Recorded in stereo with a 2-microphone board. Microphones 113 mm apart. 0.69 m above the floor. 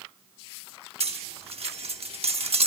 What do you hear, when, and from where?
1.0 s cutlery clinking: 65° right (ahead or behind), 0.9 m